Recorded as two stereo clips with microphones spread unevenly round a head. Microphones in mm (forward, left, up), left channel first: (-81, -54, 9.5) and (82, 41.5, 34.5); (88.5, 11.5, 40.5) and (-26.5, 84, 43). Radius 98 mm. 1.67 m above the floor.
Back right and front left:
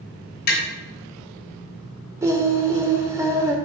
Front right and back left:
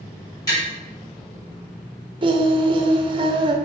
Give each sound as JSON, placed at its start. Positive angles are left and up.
{"t": 0.5, "sound": "tapping", "azimuth_deg": -105, "distance_m": 3.0}
{"t": 2.2, "sound": "singing", "azimuth_deg": 100, "distance_m": 0.8}